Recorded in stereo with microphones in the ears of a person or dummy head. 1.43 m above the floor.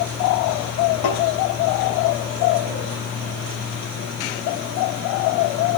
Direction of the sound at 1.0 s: 85° left.